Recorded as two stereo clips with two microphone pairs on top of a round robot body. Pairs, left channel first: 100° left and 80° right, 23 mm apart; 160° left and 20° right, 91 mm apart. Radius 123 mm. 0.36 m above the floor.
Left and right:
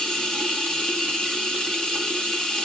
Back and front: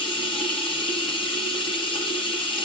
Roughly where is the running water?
Behind left.